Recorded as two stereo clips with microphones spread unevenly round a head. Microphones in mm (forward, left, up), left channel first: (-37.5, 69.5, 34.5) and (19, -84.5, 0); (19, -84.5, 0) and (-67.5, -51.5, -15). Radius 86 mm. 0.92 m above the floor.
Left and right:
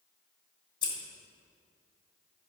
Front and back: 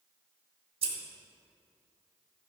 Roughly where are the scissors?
Behind.